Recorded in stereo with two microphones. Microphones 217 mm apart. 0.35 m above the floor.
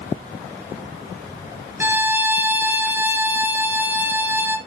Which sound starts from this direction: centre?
A violin, at 1.8 s.